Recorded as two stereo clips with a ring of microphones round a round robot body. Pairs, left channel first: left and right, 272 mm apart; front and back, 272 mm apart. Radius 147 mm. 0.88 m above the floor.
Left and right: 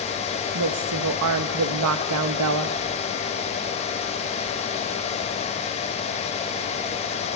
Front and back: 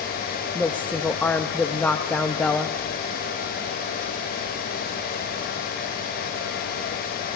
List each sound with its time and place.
0.6 s a woman speaking: 85° right, 0.8 m